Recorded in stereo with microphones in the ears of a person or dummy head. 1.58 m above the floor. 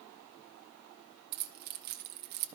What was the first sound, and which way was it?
Keys jangling, 50° right (ahead or behind).